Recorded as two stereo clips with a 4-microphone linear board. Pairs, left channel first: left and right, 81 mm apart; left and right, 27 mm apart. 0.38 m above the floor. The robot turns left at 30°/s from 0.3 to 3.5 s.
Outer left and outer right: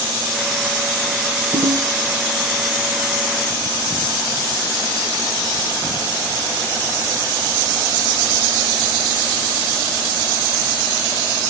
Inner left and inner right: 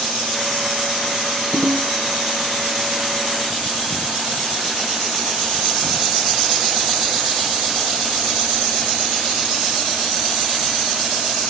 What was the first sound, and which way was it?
A ringtone, 45° left (ahead or behind).